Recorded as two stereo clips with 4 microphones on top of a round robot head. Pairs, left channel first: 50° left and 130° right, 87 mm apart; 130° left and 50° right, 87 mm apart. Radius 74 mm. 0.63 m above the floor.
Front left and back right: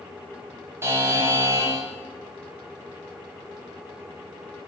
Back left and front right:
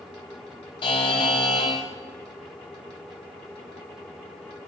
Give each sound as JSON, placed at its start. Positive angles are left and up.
{"t": 0.8, "sound": "a buzzer", "azimuth_deg": 165, "distance_m": 1.0}